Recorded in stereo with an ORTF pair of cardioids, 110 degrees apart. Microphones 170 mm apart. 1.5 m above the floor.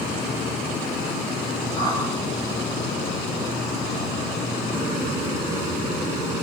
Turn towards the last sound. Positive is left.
turn(degrees=20)